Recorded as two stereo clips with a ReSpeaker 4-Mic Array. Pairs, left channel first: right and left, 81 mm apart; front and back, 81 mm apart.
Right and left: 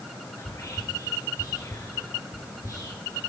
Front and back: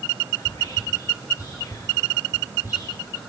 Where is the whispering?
45° right, 2 m.